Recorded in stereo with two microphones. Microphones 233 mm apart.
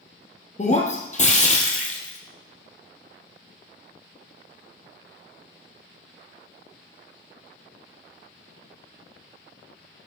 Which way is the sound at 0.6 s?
30° left (ahead or behind).